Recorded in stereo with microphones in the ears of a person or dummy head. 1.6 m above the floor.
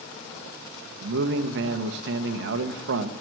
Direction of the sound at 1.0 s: 70° right (ahead or behind).